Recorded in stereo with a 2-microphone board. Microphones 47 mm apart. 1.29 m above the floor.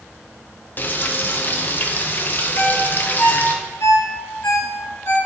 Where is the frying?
40° left (ahead or behind), 0.9 m.